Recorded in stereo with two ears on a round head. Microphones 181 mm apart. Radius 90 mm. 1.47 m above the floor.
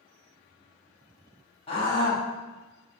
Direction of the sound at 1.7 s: 30° left (ahead or behind).